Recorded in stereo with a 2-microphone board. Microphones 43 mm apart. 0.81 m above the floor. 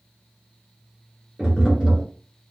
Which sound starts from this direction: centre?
Tapping, at 1.4 s.